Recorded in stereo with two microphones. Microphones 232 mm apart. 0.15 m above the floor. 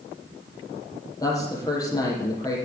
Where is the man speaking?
15° left (ahead or behind), 5 m.